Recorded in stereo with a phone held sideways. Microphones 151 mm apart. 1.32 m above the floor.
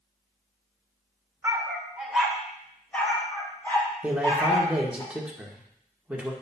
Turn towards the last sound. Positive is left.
turn(degrees=-5)  # may be behind; listen again after turning